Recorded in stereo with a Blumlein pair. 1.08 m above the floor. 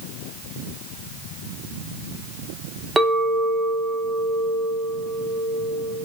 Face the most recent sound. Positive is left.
turn(degrees=-5)